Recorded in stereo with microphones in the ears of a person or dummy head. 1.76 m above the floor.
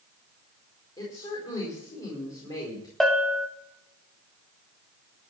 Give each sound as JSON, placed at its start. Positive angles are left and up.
{"t": 1.0, "sound": "a woman speaking", "side_deg": 20, "distance_m": 4.5}
{"t": 3.0, "sound": "a bell", "side_deg": 0, "distance_m": 1.5}